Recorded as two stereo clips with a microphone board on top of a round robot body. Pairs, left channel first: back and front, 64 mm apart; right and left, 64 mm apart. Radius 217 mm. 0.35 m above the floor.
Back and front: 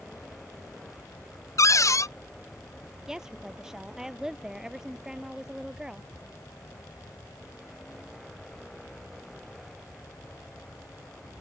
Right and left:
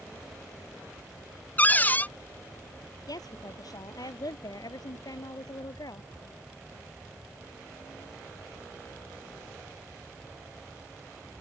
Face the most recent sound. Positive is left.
turn(degrees=-80)